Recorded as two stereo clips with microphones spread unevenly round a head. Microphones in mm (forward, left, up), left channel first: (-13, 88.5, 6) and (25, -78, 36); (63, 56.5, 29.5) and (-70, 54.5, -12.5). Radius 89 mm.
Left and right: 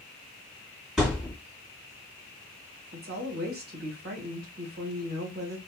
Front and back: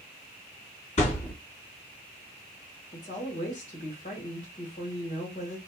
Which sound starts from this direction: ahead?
A thud, at 1.0 s.